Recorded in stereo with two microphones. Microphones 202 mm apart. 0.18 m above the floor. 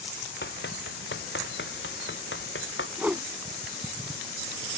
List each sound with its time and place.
0.4 s running footsteps: 60° left (ahead or behind); by 2.9 s 80° left
3.0 s a whoosh: 10° right (ahead or behind)